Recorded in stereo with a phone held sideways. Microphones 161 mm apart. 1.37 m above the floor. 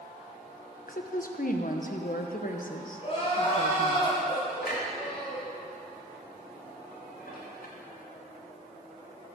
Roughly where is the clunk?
Left.